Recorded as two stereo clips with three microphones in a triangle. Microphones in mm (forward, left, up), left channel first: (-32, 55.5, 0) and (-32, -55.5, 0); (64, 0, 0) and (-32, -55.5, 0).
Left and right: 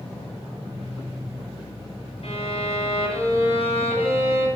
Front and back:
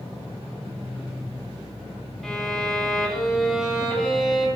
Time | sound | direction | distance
2.2 | a violin | 120° left | 9 m